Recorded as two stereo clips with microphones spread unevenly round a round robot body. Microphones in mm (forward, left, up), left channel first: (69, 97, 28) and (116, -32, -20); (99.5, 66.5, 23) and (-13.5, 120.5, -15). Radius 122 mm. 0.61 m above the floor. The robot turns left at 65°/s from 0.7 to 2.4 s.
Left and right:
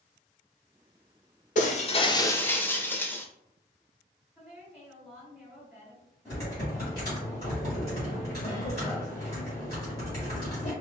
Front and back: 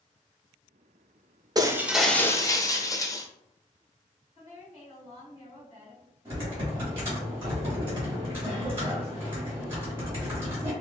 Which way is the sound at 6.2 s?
170° right.